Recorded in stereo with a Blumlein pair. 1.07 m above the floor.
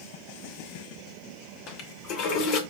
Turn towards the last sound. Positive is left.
turn(degrees=40)